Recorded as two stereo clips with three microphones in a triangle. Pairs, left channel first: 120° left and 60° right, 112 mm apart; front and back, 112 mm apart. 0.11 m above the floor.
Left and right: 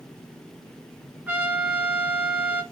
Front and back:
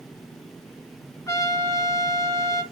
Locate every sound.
1.3 s a trumpet: straight ahead, 1.0 m